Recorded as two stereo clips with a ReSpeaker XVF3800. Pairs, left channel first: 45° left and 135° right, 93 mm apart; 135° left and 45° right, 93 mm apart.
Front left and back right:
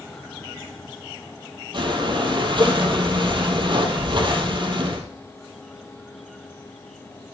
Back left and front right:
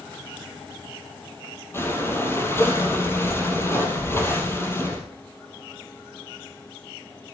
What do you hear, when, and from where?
1.7 s breathing: 165° right, 3 m